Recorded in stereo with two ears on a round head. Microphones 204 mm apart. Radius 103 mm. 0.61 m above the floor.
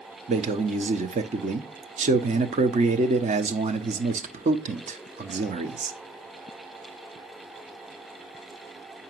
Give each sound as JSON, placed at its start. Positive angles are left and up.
{"t": 0.3, "sound": "a man speaking", "side_deg": -30, "distance_m": 0.8}